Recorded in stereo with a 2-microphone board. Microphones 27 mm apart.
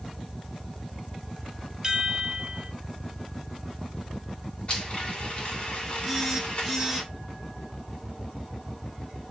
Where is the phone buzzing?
Centre (ahead or behind), 6.5 m.